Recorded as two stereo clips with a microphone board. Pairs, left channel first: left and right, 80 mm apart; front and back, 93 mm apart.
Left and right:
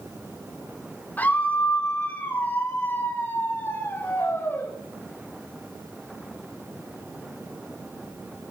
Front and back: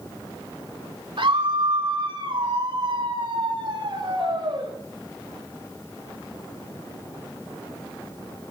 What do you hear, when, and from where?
1.2 s a scream: 160° left, 3.5 m; by 4.7 s 150° left, 5.5 m